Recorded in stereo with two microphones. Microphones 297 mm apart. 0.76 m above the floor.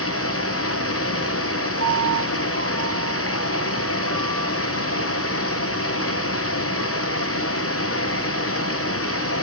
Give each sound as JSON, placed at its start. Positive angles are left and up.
{"t": 0.0, "sound": "running water", "side_deg": 55, "distance_m": 1.9}
{"t": 1.8, "sound": "a piano", "side_deg": -60, "distance_m": 6.5}